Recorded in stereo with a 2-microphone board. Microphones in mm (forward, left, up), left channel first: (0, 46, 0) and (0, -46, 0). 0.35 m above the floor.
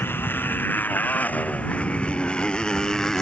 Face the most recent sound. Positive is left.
turn(degrees=5)  # may be behind; listen again after turning